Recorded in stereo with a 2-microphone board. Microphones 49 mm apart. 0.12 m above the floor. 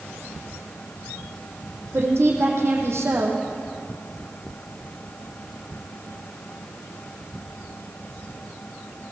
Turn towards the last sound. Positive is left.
turn(degrees=-65)  # may be behind; listen again after turning